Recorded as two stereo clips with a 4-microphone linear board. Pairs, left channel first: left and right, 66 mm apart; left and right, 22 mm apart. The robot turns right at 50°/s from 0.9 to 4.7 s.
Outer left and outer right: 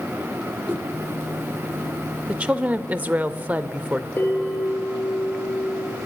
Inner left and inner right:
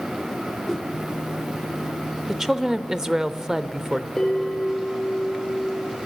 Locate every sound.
0.7 s a whoosh: 30° right (ahead or behind), 1.4 m
2.3 s a woman speaking: 15° right (ahead or behind), 0.8 m; by 4.1 s 20° right (ahead or behind), 0.8 m
4.2 s a bell: 30° left (ahead or behind), 4.5 m; by 6.0 s 55° left (ahead or behind), 4.5 m